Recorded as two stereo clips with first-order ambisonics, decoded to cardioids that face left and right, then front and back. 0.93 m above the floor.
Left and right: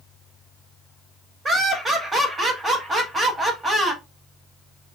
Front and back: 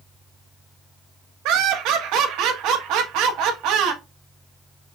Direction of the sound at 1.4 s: 165° right.